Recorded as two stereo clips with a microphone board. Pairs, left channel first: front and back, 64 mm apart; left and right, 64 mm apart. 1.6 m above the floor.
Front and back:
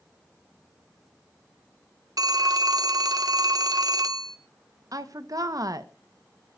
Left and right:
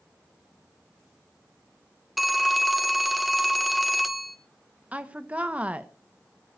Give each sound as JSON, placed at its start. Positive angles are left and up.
{"t": 2.2, "sound": "a phone ringing", "azimuth_deg": 180, "distance_m": 1.2}
{"t": 4.9, "sound": "a woman speaking", "azimuth_deg": -160, "distance_m": 1.3}